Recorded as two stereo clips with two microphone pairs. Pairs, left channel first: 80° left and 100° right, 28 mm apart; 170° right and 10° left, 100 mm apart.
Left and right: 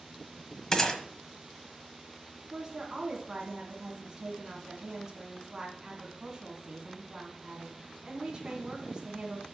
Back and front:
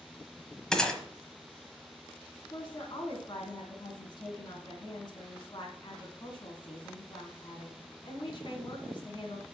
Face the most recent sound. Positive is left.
turn(degrees=-160)